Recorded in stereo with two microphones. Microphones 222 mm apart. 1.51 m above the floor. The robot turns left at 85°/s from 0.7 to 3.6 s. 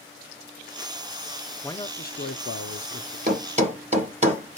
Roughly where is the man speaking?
Behind.